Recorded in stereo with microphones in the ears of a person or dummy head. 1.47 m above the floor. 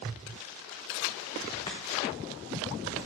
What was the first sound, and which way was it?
Chopping, 20° left (ahead or behind).